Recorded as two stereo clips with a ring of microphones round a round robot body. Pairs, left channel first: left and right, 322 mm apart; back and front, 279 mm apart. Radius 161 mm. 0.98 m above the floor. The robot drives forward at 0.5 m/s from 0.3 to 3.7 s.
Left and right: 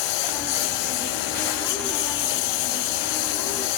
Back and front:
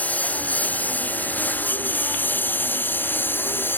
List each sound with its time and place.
0.0 s a lawn mower: 95° left; by 3.8 s 100° left